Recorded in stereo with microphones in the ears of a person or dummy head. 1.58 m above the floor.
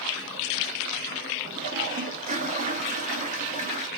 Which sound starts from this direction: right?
A toilet flushing, at 1.5 s.